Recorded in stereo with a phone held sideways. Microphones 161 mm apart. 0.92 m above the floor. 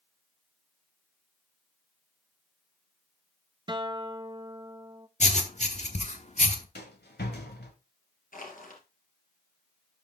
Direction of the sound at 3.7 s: 25° right (ahead or behind).